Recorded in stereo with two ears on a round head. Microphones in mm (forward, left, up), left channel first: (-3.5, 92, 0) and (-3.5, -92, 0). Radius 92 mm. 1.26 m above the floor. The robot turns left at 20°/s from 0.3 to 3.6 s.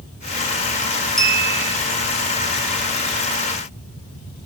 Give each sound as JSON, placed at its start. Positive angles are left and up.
{"t": 1.2, "sound": "a clink", "side_deg": 5, "distance_m": 2.5}